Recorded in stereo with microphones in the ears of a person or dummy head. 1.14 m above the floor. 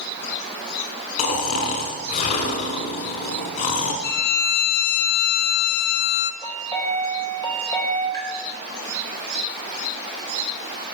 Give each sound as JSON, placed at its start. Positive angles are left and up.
{"t": 1.2, "sound": "snoring", "side_deg": 55, "distance_m": 1.4}
{"t": 4.0, "sound": "a violin", "side_deg": 50, "distance_m": 0.8}
{"t": 6.4, "sound": "a chime", "side_deg": 20, "distance_m": 3.0}
{"t": 8.1, "sound": "tapping", "side_deg": 20, "distance_m": 4.0}